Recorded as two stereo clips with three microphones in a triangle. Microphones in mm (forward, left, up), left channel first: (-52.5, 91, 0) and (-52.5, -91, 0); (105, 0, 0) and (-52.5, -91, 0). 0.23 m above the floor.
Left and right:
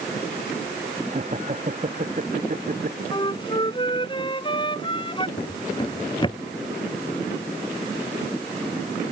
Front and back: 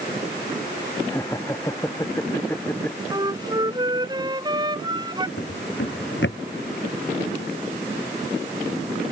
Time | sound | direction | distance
1.1 | laughter | 40° right | ?
3.1 | a flute | 145° left | ?
5.4 | a drawer | 25° left | ?